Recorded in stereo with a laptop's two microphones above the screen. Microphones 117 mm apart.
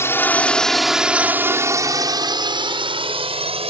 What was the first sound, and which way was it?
A drone, 25° left (ahead or behind).